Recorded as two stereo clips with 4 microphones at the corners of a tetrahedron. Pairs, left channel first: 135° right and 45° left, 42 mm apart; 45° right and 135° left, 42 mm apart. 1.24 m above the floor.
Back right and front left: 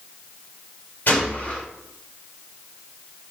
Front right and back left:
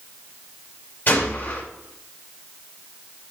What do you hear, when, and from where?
1.1 s a gunshot: 90° right, 4 m